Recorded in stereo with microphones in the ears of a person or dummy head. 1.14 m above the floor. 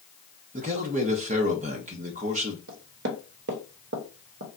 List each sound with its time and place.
0.5 s a man speaking: 35° right (ahead or behind), 0.6 m
2.7 s knocking: 65° right (ahead or behind), 0.8 m